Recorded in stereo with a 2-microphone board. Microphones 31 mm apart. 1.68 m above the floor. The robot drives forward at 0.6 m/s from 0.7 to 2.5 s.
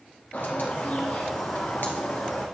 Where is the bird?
80° left, 2 m; by 2.5 s 75° left (ahead or behind), 2.5 m.